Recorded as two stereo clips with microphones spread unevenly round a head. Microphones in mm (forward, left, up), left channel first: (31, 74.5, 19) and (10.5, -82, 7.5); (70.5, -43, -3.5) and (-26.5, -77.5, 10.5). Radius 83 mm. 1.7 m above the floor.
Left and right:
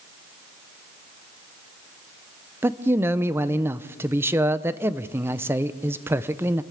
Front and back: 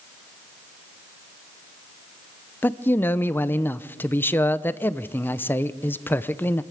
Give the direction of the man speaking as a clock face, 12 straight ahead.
1 o'clock.